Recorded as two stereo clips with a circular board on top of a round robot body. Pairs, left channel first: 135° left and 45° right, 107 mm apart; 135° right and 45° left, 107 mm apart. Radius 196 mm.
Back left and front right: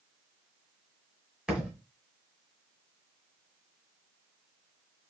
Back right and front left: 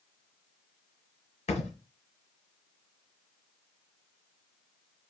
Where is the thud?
130° right, 1.8 m.